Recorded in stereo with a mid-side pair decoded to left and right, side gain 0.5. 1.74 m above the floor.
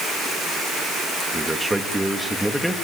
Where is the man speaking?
10° right, 3.5 m; by 2.7 s straight ahead, 3.5 m.